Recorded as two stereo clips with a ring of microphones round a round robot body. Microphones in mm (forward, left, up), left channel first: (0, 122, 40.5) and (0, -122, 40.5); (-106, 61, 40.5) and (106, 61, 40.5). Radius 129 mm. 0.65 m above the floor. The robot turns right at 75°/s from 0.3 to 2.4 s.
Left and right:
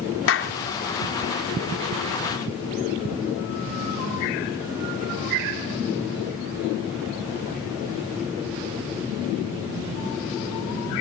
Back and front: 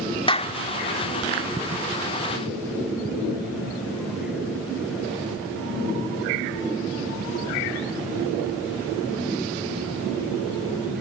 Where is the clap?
115° left; by 0.6 s 135° left.